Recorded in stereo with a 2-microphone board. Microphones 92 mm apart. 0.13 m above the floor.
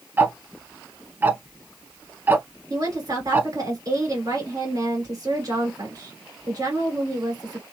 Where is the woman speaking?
45° right (ahead or behind), 2 m.